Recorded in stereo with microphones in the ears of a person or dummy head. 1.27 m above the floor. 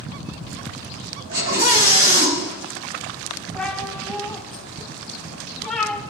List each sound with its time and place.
1.3 s a scream: 45° right (ahead or behind), 6 m
3.5 s a cat meowing: centre (ahead or behind), 3 m